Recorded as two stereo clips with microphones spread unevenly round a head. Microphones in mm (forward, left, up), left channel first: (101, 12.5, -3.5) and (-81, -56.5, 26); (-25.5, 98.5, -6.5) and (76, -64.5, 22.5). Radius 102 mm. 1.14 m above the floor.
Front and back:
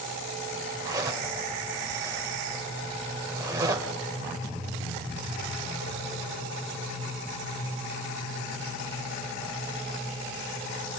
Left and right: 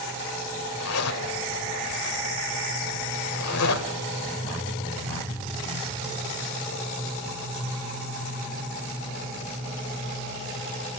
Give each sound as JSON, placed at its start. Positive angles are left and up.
{"t": 0.8, "sound": "a zipper", "azimuth_deg": 130, "distance_m": 1.8}